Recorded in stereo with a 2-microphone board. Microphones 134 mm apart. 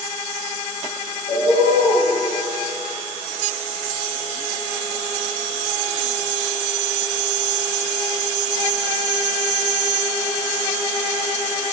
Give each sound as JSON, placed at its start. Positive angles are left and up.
{"t": 1.3, "sound": "a bird", "side_deg": 50, "distance_m": 1.7}